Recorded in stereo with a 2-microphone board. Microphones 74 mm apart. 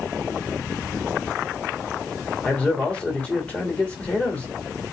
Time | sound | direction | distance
2.4 | a man speaking | 15° left (ahead or behind) | 1.4 m